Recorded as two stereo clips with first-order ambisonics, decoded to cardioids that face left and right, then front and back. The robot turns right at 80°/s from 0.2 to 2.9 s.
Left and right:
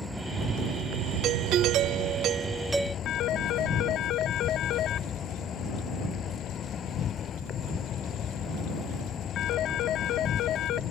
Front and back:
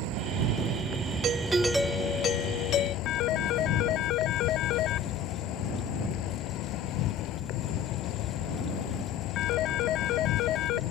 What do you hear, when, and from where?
0.0 s an insect: 175° left; by 10.9 s 35° left
1.2 s a doorbell: 130° right; by 3.0 s straight ahead
3.0 s a phone ringing: 45° left